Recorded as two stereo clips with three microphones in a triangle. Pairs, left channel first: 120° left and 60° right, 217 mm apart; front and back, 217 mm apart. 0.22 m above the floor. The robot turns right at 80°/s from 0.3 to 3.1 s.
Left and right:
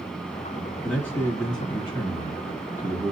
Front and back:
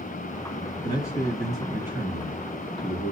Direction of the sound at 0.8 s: 35° left.